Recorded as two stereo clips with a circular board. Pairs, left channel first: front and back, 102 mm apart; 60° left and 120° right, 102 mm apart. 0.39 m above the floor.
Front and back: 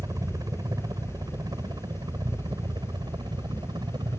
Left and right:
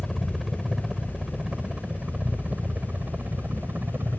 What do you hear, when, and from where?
0.0 s a helicopter: 150° left; by 4.2 s straight behind